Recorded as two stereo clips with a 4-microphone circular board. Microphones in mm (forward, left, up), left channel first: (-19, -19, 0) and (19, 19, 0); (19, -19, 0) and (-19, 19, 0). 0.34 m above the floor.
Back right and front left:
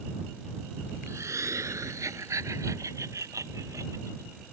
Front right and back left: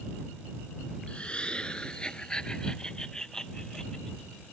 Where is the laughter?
25° left; by 4.5 s 35° left.